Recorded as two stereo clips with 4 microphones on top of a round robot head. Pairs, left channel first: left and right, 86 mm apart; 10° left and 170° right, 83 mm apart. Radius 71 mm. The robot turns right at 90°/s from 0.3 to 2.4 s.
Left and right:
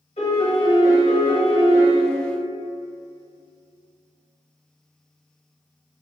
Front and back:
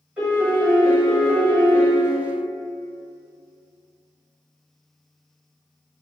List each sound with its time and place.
0.2 s a piano: 120° left, 1.3 m; by 1.9 s 95° right, 1.3 m